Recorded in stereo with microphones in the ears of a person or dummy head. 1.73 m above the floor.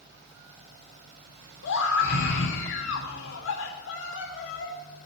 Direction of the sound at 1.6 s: 80° left.